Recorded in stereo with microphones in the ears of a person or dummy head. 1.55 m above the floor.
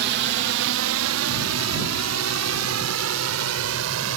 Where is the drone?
50° right (ahead or behind); by 4.2 s 75° right (ahead or behind).